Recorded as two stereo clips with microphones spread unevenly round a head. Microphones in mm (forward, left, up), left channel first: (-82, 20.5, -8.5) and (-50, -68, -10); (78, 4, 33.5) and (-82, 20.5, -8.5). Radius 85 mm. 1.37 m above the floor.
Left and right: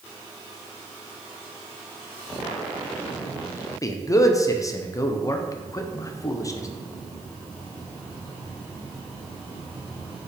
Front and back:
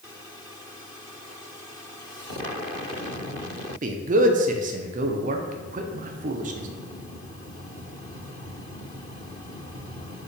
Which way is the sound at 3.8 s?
165° left.